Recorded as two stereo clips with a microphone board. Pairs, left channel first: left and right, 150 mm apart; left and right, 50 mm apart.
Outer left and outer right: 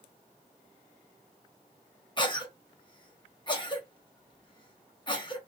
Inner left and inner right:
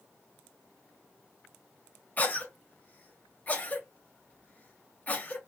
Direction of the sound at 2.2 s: 30° left (ahead or behind).